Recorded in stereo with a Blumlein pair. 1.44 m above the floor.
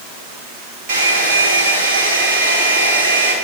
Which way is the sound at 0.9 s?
40° right.